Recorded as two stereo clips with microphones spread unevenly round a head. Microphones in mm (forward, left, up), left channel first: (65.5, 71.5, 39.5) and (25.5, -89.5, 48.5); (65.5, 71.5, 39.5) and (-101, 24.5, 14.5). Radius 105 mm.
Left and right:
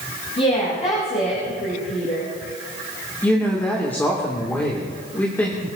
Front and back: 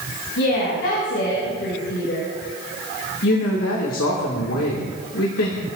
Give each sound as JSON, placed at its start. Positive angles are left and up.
{"t": 0.4, "sound": "a woman speaking", "azimuth_deg": 25, "distance_m": 7.0}
{"t": 3.2, "sound": "a woman speaking", "azimuth_deg": -5, "distance_m": 2.5}